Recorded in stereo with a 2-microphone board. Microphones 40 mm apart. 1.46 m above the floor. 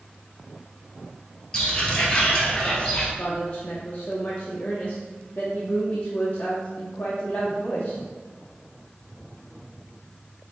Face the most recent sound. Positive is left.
turn(degrees=35)  # may be behind; listen again after turning